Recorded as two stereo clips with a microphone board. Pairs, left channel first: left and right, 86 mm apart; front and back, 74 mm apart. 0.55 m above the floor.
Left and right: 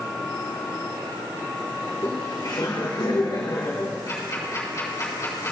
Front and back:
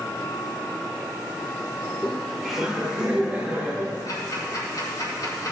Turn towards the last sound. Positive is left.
turn(degrees=40)